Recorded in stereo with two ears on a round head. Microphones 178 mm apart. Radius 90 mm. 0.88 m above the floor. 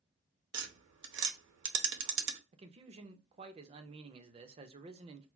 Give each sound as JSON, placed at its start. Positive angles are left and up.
{"t": 0.5, "sound": "tapping", "side_deg": -65, "distance_m": 0.7}
{"t": 2.5, "sound": "a man speaking", "side_deg": -30, "distance_m": 0.6}